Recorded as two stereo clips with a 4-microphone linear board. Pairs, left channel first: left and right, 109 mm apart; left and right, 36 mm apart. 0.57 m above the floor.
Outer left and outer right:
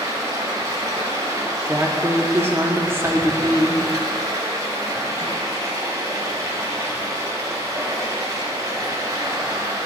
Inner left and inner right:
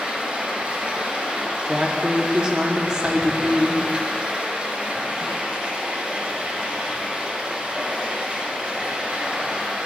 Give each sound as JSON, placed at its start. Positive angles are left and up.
{"t": 0.0, "sound": "running water", "side_deg": -35, "distance_m": 1.0}
{"t": 1.6, "sound": "a woman speaking", "side_deg": -25, "distance_m": 0.6}